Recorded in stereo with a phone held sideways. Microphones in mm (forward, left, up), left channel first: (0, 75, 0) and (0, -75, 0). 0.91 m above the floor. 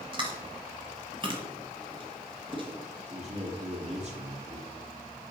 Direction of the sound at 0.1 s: 35° right (ahead or behind).